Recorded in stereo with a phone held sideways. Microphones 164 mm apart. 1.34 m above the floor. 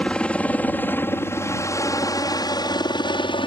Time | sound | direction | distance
0.0 | a helicopter | 5° left (ahead or behind) | ?